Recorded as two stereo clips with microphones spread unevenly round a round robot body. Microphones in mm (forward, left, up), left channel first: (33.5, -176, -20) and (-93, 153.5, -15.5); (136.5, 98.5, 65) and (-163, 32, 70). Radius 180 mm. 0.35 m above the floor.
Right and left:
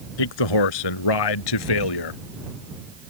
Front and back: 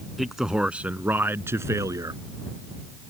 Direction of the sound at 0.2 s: 80° right.